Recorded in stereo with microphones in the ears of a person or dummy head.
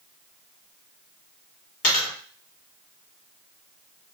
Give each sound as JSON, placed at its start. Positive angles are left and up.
{"t": 1.8, "sound": "a dropped coin", "side_deg": 45, "distance_m": 2.5}